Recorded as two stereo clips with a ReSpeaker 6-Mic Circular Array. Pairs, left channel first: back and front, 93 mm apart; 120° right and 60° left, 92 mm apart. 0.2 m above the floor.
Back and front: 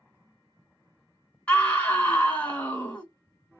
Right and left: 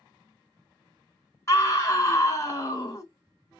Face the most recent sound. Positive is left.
turn(degrees=-115)